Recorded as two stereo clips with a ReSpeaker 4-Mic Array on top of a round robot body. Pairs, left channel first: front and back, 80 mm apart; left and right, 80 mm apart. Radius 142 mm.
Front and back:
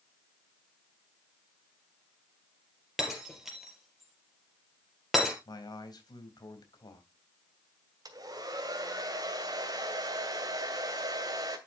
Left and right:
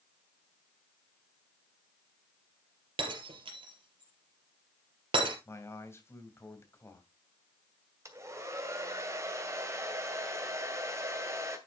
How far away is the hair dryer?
About 2.5 m.